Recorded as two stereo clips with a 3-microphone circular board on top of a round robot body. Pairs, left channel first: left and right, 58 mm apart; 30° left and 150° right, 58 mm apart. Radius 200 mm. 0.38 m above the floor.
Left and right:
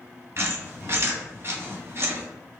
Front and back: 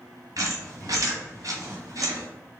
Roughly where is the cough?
No cough in this recording.